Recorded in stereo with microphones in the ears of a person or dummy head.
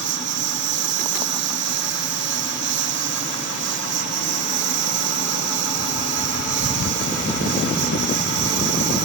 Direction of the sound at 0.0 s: 65° right (ahead or behind).